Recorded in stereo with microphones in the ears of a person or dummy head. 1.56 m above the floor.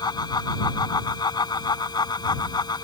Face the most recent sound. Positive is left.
turn(degrees=25)  # may be behind; listen again after turning